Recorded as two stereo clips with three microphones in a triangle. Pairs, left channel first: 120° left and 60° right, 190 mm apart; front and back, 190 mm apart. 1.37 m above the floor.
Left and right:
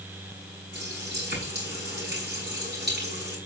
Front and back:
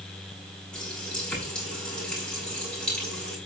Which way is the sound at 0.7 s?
85° right.